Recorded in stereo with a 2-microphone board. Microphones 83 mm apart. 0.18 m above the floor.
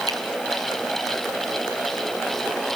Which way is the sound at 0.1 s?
50° right (ahead or behind).